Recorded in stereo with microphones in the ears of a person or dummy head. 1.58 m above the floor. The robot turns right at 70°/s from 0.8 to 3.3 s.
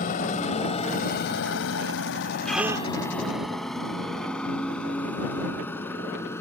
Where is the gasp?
175° left; by 2.9 s 150° right.